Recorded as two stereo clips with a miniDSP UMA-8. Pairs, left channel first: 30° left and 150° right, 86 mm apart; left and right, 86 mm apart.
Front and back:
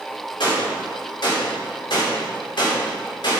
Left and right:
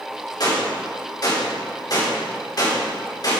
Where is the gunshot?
55° left, 3.5 m.